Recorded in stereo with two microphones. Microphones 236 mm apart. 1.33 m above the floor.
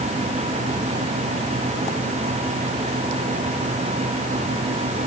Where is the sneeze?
No sneeze in this recording.